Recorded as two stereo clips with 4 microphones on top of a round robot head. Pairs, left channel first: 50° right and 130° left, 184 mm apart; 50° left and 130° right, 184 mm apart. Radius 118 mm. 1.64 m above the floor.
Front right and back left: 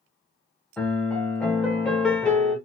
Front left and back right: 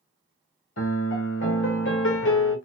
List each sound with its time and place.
0.8 s a piano: 35° left, 0.7 m